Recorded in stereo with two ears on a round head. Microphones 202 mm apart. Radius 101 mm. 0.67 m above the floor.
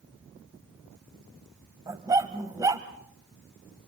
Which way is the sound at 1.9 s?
15° right (ahead or behind).